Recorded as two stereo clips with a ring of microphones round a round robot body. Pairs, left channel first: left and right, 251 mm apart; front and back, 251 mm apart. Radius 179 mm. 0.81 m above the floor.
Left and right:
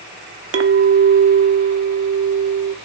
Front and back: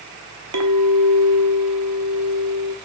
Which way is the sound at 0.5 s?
130° right.